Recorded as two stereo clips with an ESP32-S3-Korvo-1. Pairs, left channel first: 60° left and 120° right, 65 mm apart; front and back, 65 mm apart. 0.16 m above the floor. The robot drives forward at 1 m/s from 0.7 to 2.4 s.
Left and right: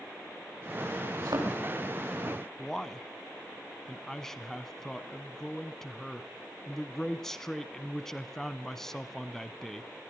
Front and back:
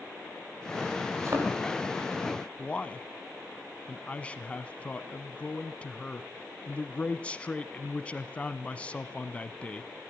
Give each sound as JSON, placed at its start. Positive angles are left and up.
{"t": 1.2, "sound": "a thud", "azimuth_deg": -135, "distance_m": 7.0}
{"t": 2.6, "sound": "a man speaking", "azimuth_deg": -10, "distance_m": 1.0}